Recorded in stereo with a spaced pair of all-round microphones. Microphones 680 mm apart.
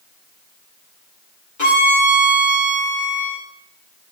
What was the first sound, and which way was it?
A violin, 25° left (ahead or behind).